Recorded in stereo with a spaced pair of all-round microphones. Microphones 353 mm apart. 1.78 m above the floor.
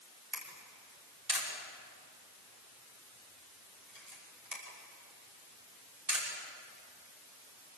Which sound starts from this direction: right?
A camera shutter, at 0.3 s.